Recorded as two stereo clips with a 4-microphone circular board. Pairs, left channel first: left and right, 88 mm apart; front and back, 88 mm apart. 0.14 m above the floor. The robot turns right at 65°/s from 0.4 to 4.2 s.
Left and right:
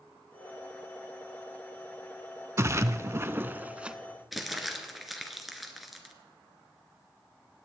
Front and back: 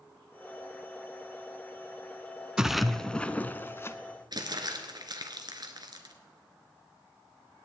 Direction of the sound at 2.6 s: 105° right.